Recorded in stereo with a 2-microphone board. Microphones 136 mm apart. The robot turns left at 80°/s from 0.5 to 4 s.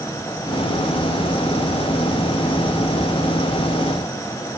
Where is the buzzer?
I don't hear a buzzer.